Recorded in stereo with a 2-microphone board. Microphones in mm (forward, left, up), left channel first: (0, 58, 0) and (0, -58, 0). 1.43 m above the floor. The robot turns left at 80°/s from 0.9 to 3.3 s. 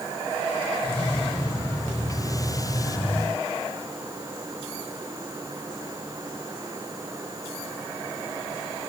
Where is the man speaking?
I don't hear a man speaking.